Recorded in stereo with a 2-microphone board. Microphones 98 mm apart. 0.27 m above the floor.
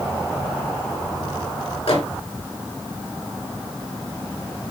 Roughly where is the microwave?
Left.